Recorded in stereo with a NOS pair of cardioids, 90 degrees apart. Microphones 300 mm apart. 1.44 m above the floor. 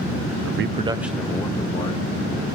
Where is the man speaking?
60° right, 0.5 m; by 2.0 s 20° left, 1.7 m.